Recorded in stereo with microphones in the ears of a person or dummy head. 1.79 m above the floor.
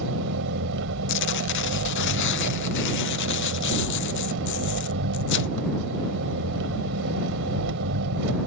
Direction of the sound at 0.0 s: 75° right (ahead or behind).